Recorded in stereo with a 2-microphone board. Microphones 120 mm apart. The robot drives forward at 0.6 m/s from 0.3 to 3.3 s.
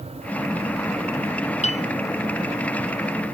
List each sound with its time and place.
1.6 s a piano: 65° left (ahead or behind)